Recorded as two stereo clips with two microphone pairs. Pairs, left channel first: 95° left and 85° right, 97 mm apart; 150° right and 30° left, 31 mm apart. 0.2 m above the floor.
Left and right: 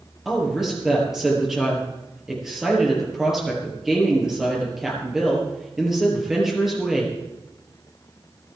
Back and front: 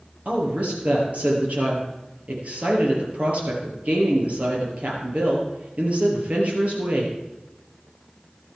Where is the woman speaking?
Straight ahead, 4.5 m.